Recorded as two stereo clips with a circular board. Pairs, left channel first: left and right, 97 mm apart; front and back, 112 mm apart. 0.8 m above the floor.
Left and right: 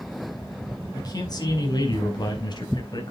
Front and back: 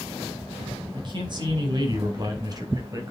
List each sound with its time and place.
0.9 s a man speaking: 135° left, 5.5 m; by 3.1 s 125° left, 4.5 m